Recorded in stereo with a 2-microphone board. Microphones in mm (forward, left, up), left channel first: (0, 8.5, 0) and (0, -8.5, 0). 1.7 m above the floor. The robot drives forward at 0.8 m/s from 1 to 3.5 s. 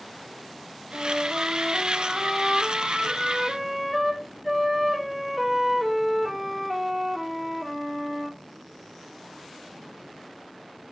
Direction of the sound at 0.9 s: 10° right (ahead or behind).